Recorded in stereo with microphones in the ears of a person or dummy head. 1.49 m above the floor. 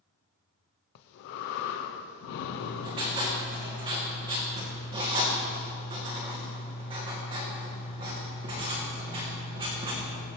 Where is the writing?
25° right (ahead or behind), 2 m.